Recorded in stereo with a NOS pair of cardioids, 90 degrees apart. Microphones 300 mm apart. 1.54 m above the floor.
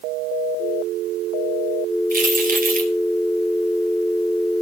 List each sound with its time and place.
2.1 s keys jangling: 30° right, 4.5 m